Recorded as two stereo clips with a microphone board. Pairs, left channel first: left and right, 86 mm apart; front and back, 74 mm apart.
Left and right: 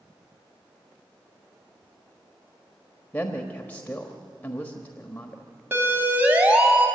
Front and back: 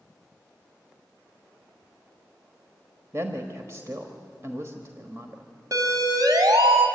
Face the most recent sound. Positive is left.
turn(degrees=-165)